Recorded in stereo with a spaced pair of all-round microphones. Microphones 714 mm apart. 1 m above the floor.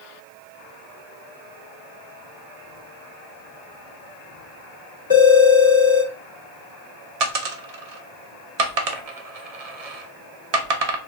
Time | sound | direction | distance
5.1 | a phone ringing | 30° left (ahead or behind) | 1.5 m
7.2 | a dropped coin | 60° right (ahead or behind) | 0.7 m